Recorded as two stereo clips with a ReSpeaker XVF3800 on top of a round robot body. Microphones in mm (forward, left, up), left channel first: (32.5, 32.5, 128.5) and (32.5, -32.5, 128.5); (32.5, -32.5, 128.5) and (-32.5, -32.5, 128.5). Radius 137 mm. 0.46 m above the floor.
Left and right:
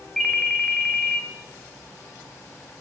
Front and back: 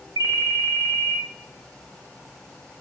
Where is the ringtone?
Straight behind, 0.6 m.